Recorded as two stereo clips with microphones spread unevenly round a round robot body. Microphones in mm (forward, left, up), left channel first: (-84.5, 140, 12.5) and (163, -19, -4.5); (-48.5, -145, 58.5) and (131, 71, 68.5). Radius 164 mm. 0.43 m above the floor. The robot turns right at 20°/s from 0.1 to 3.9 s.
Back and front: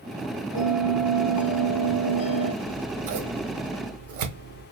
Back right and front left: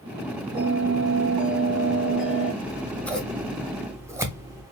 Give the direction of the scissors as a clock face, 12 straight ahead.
2 o'clock.